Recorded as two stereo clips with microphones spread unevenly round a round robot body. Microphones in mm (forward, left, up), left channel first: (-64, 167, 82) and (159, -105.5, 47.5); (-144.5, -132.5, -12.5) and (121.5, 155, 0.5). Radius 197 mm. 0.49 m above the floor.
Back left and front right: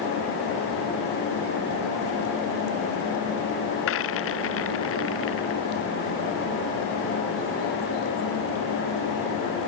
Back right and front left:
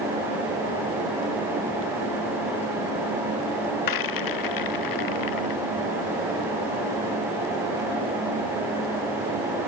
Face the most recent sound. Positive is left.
turn(degrees=-175)